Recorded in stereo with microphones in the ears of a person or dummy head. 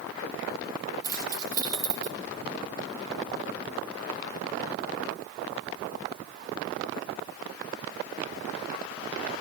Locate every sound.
1.0 s keys jangling: 20° right (ahead or behind), 1.4 m